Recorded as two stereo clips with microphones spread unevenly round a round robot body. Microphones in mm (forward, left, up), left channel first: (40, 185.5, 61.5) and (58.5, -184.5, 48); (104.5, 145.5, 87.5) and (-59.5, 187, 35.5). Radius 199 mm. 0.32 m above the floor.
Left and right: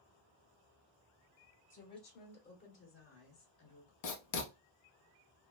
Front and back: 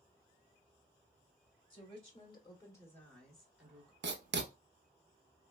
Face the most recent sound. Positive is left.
turn(degrees=135)